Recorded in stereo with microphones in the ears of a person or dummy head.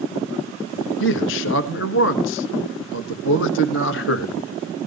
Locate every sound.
1.0 s a man speaking: 70° left (ahead or behind), 1.7 m